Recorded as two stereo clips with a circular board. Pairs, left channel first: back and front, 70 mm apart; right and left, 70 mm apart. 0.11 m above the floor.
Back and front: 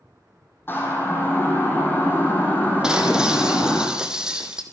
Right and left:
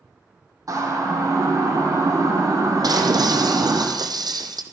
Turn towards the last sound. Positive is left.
turn(degrees=80)